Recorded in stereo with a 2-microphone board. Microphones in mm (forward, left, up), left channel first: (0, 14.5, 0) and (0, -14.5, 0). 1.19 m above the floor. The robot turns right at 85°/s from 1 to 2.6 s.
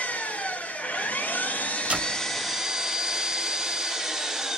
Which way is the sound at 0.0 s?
60° left.